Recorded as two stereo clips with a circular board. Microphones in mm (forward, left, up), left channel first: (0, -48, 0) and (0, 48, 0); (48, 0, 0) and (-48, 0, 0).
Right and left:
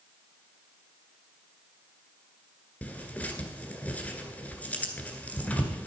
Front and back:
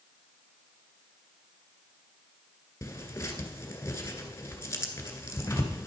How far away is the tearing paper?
About 1.7 m.